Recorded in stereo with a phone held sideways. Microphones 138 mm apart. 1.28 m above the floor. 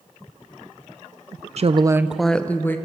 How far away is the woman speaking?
About 0.6 m.